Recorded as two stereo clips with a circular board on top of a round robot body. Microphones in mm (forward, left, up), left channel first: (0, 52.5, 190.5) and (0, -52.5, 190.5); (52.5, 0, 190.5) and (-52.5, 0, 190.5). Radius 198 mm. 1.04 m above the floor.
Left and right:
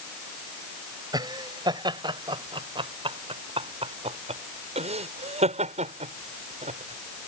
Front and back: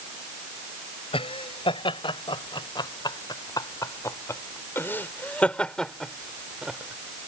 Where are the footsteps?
No footsteps in this recording.